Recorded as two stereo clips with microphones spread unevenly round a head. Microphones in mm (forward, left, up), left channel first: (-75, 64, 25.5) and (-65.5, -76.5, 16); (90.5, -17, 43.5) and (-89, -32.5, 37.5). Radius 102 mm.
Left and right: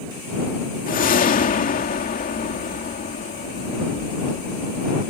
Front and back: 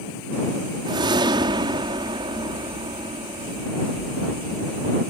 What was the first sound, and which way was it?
A whoosh, 115° left.